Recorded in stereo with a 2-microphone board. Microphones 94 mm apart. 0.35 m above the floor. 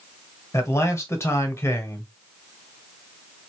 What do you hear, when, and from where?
0.5 s a man speaking: 30° left (ahead or behind), 1.4 m